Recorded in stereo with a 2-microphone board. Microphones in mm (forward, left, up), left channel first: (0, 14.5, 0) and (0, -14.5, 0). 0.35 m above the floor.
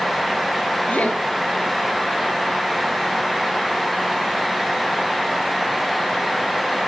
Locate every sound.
0.9 s laughter: 60° left (ahead or behind), 7 m